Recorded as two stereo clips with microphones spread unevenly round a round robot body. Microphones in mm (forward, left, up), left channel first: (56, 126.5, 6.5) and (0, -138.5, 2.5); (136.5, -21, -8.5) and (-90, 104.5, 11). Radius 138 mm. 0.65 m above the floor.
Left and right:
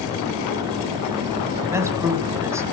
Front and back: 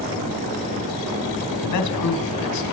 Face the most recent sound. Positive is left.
turn(degrees=-20)